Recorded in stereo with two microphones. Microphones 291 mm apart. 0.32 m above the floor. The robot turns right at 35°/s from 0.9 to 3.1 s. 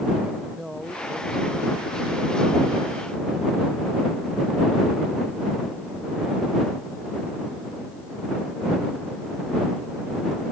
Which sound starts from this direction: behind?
A man speaking, at 0.5 s.